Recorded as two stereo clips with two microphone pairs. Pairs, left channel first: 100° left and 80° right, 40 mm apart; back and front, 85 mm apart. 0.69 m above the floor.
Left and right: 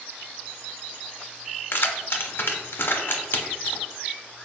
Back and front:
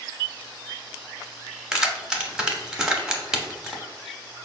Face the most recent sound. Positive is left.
turn(degrees=80)